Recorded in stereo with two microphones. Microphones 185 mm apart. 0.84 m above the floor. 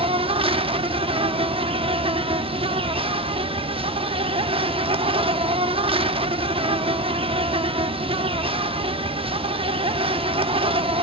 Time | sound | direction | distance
0.0 | an insect | 30° right (ahead or behind) | 0.8 m